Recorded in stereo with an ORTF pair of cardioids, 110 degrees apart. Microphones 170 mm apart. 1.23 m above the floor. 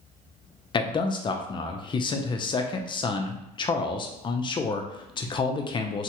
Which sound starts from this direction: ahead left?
A man speaking, at 0.7 s.